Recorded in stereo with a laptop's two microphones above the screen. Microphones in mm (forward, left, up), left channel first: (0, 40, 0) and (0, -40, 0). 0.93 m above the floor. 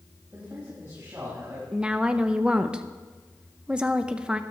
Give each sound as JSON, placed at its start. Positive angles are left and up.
{"t": 0.3, "sound": "a man speaking", "side_deg": -35, "distance_m": 4.5}
{"t": 1.7, "sound": "a woman speaking", "side_deg": -10, "distance_m": 0.7}